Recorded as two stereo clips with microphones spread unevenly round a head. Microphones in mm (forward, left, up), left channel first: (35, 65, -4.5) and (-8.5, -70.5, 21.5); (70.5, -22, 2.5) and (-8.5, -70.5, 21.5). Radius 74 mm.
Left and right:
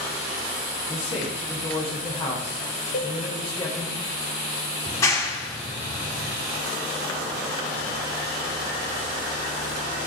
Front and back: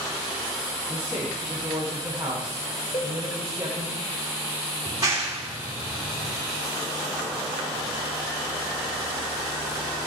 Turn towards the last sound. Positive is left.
turn(degrees=145)